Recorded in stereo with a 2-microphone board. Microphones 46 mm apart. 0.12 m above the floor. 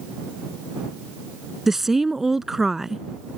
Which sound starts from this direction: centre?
A woman speaking, at 1.7 s.